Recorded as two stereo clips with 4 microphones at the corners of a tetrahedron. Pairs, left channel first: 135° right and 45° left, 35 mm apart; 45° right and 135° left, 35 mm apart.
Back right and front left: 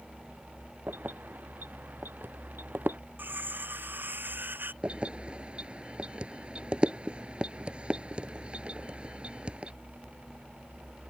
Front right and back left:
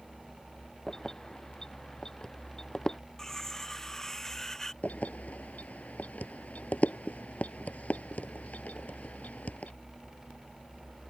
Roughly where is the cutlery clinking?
Ahead left.